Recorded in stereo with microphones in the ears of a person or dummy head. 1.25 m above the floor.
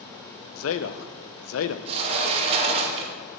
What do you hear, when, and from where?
0.6 s a man speaking: 70° left (ahead or behind), 0.5 m
1.9 s a sliding door: 30° right (ahead or behind), 0.7 m